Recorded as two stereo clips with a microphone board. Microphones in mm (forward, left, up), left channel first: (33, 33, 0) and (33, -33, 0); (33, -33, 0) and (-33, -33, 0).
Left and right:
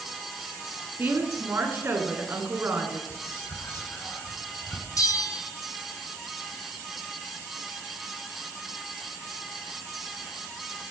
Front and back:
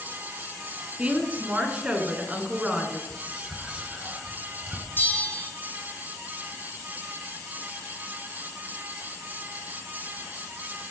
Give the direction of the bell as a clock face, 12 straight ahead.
10 o'clock.